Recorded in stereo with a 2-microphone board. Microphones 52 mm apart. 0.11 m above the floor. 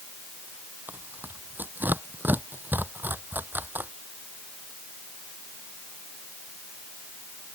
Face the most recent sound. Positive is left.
turn(degrees=-40)  # may be behind; listen again after turning